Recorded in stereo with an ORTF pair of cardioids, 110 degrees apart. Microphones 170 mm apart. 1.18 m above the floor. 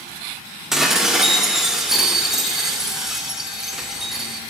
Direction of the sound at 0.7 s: 5° right.